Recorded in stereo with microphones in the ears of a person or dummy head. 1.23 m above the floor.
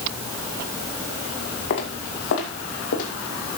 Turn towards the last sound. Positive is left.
turn(degrees=65)  # may be behind; listen again after turning